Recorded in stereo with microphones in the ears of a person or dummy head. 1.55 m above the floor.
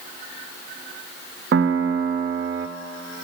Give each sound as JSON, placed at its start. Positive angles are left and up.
{"t": 1.5, "sound": "a piano", "side_deg": -65, "distance_m": 0.5}